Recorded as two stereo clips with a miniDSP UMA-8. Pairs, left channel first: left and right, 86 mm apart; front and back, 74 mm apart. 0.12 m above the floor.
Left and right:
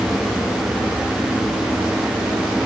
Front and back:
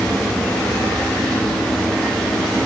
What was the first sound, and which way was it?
Only background noise.